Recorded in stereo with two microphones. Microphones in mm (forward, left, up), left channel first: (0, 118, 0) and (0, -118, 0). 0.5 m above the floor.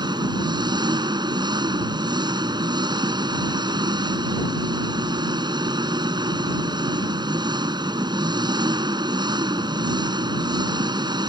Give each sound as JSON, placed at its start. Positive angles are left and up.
{"t": 0.0, "sound": "an engine running", "side_deg": -20}